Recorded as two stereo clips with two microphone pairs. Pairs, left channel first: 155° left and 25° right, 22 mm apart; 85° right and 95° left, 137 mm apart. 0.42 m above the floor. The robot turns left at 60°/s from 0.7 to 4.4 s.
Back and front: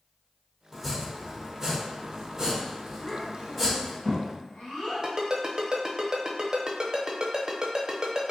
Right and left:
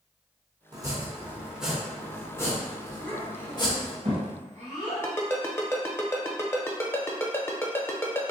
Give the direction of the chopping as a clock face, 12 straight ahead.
10 o'clock.